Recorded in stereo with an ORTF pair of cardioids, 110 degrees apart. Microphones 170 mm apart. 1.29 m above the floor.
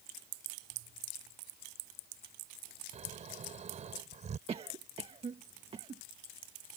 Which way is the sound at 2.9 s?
45° right.